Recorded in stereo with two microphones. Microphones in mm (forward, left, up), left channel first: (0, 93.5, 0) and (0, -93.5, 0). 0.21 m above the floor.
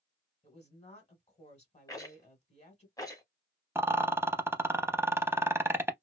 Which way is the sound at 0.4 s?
35° left (ahead or behind).